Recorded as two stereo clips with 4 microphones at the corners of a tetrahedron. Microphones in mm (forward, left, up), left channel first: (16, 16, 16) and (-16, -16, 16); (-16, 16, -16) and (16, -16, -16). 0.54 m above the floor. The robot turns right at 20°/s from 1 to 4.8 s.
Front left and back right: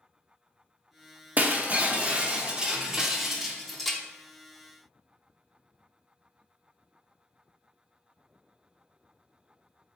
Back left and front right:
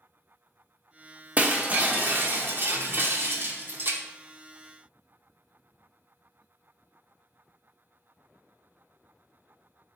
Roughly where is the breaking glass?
Right.